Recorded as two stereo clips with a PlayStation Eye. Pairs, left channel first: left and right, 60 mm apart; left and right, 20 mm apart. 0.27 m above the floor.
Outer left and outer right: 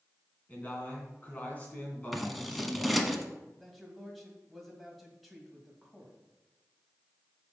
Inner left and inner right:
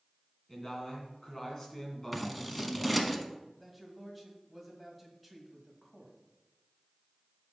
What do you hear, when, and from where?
0.5 s a man speaking: 25° left (ahead or behind), 2.5 m
2.1 s scissors: centre (ahead or behind), 0.9 m
3.6 s a man speaking: centre (ahead or behind), 1.9 m